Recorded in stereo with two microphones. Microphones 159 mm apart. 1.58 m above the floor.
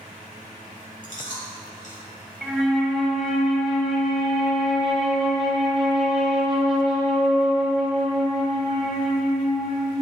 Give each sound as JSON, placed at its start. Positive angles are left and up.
{"t": 1.0, "sound": "chewing", "side_deg": 60, "distance_m": 2.0}
{"t": 2.4, "sound": "a flute", "side_deg": -5, "distance_m": 1.3}